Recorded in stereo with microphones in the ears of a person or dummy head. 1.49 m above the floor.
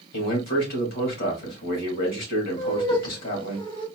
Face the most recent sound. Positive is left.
turn(degrees=25)  # may be behind; listen again after turning